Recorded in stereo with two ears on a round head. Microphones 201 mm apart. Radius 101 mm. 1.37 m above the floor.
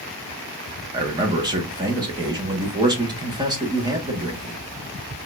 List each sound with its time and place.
0.9 s a man speaking: 20° right (ahead or behind), 1.6 m